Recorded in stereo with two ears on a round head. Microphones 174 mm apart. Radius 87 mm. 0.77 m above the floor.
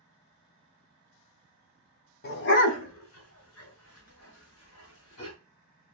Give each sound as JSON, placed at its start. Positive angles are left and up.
{"t": 2.2, "sound": "a dog barking", "side_deg": 50, "distance_m": 0.7}